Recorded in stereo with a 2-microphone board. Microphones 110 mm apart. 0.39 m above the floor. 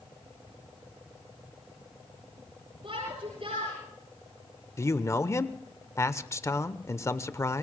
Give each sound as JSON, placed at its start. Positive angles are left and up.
{"t": 2.8, "sound": "a shout", "side_deg": -60, "distance_m": 7.5}
{"t": 4.8, "sound": "a man speaking", "side_deg": 25, "distance_m": 0.9}